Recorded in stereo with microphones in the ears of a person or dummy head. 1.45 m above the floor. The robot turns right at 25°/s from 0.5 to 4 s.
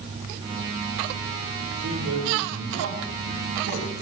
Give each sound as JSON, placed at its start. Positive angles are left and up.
{"t": 1.7, "sound": "a man speaking", "azimuth_deg": -115, "distance_m": 3.0}